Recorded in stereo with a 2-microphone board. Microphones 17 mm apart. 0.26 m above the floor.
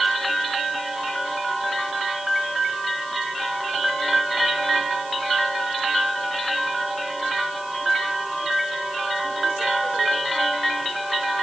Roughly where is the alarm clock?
I don't hear an alarm clock.